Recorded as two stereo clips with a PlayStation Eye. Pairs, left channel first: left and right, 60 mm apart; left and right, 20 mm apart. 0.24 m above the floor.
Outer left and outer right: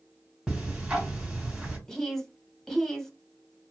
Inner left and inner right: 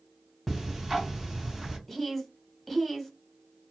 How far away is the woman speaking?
About 1.1 m.